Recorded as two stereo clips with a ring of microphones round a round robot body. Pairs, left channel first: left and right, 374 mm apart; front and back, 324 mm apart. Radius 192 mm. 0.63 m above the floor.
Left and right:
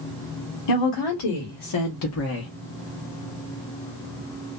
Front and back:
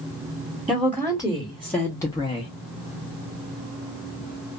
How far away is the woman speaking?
About 1.4 m.